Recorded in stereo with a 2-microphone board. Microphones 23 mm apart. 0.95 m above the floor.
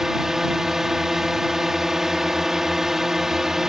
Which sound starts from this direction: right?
A drone, at 0.0 s.